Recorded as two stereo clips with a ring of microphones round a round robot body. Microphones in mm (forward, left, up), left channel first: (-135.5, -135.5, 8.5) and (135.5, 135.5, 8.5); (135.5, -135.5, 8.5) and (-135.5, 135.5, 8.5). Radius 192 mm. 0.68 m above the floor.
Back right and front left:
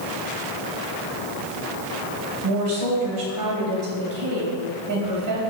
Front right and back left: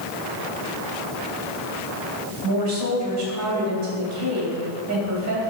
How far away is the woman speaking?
About 3 m.